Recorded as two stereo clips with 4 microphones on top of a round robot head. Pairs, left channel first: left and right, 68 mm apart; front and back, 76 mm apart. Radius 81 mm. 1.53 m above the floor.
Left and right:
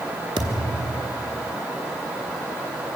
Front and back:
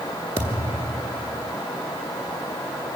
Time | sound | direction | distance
0.4 | a thud | 110° right | 1.6 m